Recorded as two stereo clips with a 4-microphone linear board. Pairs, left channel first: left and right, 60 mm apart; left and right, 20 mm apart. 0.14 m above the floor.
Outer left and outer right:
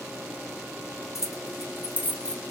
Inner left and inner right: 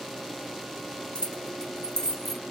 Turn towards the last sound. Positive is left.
turn(degrees=5)  # may be behind; listen again after turning